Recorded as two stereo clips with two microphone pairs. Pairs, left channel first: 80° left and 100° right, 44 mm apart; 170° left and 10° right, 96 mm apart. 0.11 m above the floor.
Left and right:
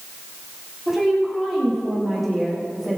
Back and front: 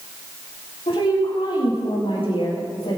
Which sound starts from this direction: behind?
A woman speaking, at 0.9 s.